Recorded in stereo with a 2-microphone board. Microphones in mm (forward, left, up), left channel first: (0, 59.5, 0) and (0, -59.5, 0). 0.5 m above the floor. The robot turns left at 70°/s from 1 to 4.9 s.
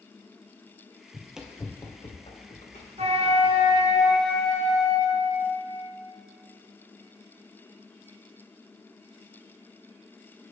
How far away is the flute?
About 0.9 m.